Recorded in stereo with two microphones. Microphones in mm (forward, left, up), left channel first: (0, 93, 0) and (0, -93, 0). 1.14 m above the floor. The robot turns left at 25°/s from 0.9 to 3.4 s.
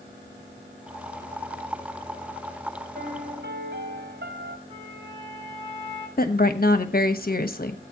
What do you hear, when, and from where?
3.0 s a piano: 60° right (ahead or behind), 1.9 m; by 4.6 s 65° right (ahead or behind), 1.9 m
4.7 s a flute: 25° right (ahead or behind), 10 m
6.2 s a woman speaking: 50° left (ahead or behind), 1.2 m